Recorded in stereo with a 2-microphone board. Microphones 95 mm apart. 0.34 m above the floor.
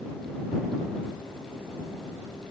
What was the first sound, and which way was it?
Only background noise.